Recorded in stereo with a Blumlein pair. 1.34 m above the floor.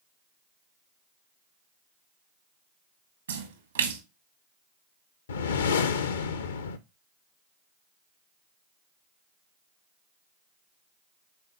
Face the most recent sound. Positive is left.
turn(degrees=65)